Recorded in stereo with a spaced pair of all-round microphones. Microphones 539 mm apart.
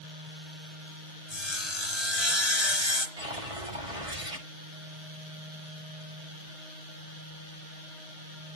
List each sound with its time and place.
1.3 s sawing: 55° left (ahead or behind), 3 m
3.2 s a whoosh: 85° right, 7 m